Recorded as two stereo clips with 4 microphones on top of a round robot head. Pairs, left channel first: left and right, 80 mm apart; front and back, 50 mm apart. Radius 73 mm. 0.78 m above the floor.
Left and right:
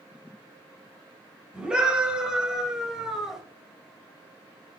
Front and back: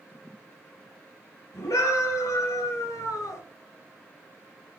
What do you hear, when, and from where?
1.5 s a scream: 15° right, 5.5 m; by 3.4 s 5° right, 3.5 m